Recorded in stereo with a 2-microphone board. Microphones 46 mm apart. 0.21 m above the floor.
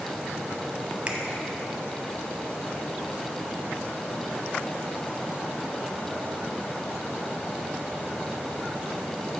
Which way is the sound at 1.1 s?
25° right (ahead or behind).